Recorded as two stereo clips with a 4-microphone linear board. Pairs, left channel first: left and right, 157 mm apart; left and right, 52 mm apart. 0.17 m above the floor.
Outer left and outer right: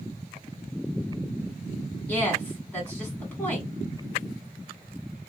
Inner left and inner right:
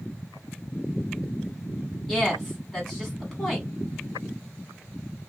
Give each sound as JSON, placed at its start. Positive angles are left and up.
{"t": 2.1, "sound": "a woman speaking", "side_deg": 10, "distance_m": 1.4}